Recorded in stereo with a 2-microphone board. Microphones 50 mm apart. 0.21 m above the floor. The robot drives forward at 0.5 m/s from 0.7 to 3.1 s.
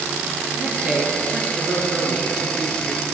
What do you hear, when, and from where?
0.5 s a man speaking: 20° right (ahead or behind), 4.5 m; by 3.0 s 30° right (ahead or behind), 3.5 m